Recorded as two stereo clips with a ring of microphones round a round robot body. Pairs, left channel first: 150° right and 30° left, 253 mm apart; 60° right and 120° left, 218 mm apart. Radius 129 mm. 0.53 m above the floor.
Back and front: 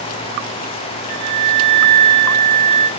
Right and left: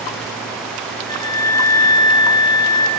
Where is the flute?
10° left, 3.5 m.